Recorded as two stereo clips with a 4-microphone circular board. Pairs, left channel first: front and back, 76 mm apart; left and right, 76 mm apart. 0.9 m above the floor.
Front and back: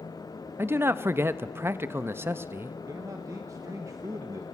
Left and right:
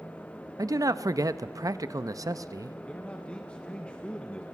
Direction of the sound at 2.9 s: 160° left.